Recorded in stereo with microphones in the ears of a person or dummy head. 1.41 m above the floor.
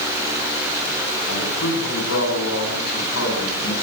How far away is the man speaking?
About 9 m.